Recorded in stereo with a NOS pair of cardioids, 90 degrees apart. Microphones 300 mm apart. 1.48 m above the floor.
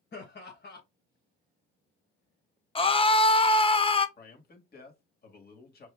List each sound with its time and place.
0.1 s laughter: 35° left, 1.4 m
2.8 s a scream: 20° left, 0.8 m
4.2 s a man speaking: 30° left, 1.9 m